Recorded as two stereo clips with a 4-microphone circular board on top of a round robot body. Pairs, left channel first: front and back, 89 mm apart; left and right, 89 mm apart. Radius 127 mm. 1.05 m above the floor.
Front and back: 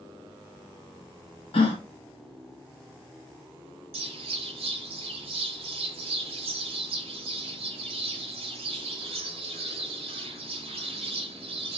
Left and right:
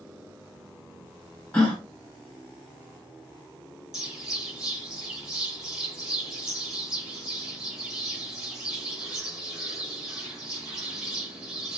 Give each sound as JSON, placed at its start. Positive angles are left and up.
{"t": 1.5, "sound": "a gasp", "azimuth_deg": 10, "distance_m": 0.5}
{"t": 3.9, "sound": "a bird", "azimuth_deg": -175, "distance_m": 0.6}